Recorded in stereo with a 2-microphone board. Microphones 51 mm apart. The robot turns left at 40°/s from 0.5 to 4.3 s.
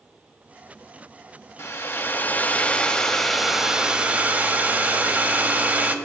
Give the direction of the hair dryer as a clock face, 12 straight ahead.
10 o'clock.